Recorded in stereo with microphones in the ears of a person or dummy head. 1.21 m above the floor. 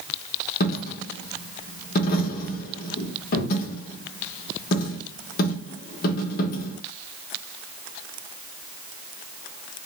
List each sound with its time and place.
0.6 s a dropped coin: 55° left (ahead or behind), 1.0 m